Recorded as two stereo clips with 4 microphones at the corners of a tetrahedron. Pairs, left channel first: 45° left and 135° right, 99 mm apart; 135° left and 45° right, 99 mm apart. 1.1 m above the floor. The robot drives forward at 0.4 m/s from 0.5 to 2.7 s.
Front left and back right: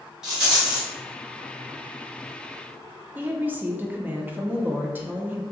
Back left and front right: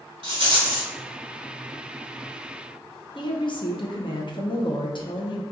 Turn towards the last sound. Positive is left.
turn(degrees=155)